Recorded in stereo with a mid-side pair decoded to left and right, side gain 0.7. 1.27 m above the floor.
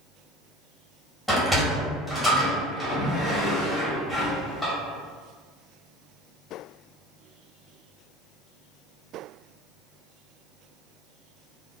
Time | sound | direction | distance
1.3 | a sliding door | straight ahead | 1.3 m